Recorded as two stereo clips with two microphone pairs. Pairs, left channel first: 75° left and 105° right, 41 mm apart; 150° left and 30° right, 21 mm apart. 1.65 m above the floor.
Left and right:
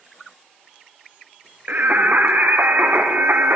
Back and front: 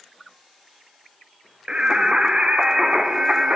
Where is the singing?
60° right, 1.1 m.